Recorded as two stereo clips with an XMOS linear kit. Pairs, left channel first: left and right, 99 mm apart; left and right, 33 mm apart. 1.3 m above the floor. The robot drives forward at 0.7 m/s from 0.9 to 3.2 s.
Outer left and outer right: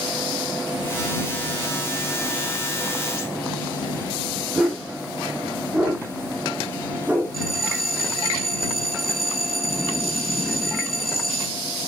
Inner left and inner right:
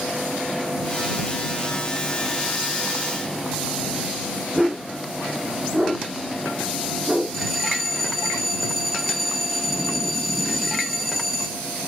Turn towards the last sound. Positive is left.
turn(degrees=0)  # may be behind; listen again after turning